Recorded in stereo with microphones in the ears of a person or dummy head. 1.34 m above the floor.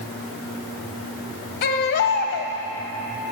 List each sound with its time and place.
1.6 s a baby crying: 50° left (ahead or behind), 1.2 m